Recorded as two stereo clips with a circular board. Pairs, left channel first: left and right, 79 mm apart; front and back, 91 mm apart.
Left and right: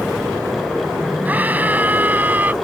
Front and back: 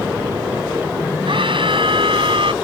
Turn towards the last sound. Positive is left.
turn(degrees=-155)